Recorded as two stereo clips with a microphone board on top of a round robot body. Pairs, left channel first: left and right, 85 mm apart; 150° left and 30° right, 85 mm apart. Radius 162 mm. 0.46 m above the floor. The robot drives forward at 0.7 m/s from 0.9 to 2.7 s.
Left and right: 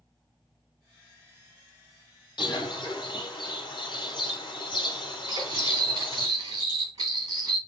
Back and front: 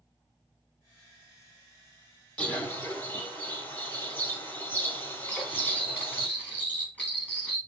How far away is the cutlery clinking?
About 3.5 m.